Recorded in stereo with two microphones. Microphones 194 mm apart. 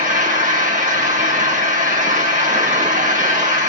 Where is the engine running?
40° right (ahead or behind), 1.4 m.